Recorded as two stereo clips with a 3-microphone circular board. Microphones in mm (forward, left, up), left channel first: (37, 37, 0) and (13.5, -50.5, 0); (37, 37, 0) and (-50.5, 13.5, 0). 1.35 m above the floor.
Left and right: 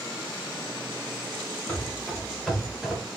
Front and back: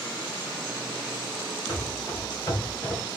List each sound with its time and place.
1.7 s running footsteps: 25° left, 1.7 m; by 3.0 s 30° right, 1.4 m